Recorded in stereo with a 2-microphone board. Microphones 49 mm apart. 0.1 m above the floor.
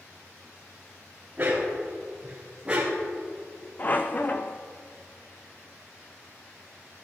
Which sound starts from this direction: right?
A dog barking, at 1.4 s.